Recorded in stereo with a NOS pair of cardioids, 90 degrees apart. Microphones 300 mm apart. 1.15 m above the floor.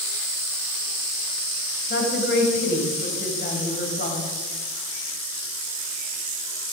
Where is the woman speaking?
35° left, 5.5 m.